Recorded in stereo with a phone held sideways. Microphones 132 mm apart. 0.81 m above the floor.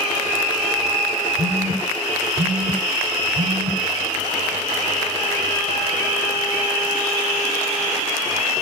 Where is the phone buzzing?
70° right (ahead or behind), 3 m.